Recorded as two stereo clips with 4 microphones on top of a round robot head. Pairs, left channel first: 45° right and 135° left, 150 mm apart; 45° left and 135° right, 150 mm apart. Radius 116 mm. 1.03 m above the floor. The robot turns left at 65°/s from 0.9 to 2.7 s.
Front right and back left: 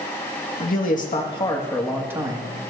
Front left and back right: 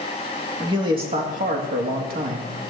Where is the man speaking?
75° right, 2.5 m; by 2.7 s 170° left, 2.5 m.